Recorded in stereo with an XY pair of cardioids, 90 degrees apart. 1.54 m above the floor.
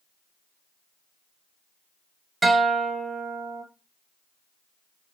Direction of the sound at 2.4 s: 20° right.